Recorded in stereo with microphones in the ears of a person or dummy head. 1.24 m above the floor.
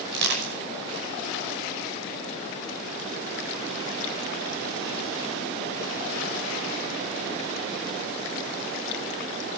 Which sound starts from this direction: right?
Crushing, at 0.1 s.